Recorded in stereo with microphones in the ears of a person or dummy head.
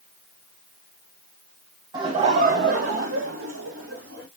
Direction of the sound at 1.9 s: 20° right (ahead or behind).